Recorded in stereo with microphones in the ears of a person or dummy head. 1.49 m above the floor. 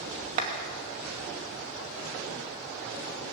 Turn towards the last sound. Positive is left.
turn(degrees=-40)  # may be behind; listen again after turning